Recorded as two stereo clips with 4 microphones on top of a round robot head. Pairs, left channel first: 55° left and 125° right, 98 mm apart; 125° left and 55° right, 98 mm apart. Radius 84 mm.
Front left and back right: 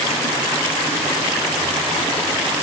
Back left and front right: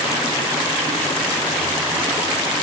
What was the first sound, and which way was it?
Only background noise.